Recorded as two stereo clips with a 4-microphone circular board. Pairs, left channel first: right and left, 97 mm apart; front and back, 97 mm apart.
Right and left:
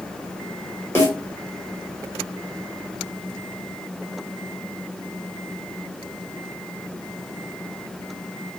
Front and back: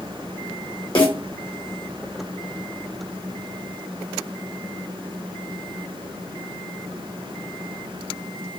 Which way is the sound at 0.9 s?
25° right.